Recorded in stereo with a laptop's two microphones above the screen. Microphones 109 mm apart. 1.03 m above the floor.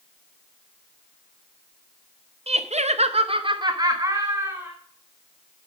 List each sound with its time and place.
2.5 s laughter: 65° right (ahead or behind), 0.7 m; by 4.7 s 25° right (ahead or behind), 1.7 m